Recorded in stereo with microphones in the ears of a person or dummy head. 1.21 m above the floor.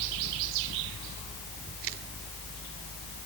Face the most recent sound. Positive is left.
No sound to turn to.